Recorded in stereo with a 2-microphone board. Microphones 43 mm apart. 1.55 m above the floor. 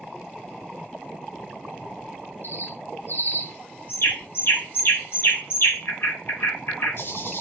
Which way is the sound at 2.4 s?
60° left (ahead or behind).